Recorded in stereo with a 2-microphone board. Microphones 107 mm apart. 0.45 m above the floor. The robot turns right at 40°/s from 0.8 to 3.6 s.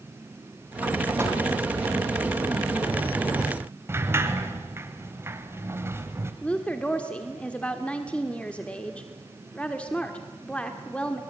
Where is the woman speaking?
10° left (ahead or behind), 1.3 m.